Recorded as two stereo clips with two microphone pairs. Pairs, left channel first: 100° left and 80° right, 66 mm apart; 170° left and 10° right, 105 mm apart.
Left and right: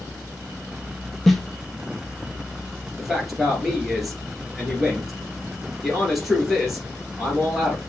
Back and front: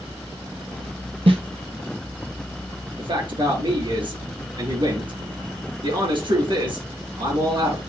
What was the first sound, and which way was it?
A snare drum, 20° left.